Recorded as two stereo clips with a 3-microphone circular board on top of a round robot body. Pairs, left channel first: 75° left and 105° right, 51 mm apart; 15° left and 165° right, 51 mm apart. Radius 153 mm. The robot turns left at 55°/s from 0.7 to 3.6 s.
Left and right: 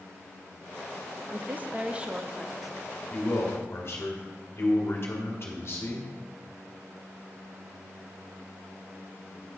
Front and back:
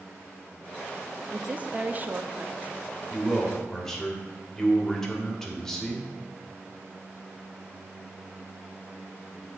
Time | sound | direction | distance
1.3 | a woman speaking | 115° right | 0.8 m
3.1 | a man speaking | 120° left | 1.9 m